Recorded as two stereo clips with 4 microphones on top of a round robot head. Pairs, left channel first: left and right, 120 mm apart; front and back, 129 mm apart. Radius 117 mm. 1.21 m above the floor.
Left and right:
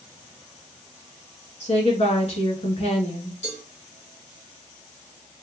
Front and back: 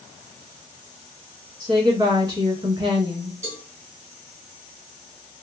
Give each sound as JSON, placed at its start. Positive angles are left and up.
{"t": 1.6, "sound": "a woman speaking", "azimuth_deg": 120, "distance_m": 2.0}
{"t": 3.4, "sound": "a cowbell", "azimuth_deg": 110, "distance_m": 2.0}